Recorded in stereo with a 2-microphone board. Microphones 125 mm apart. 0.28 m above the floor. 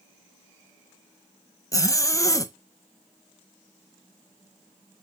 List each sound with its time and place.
1.7 s a zipper: 25° left (ahead or behind), 0.8 m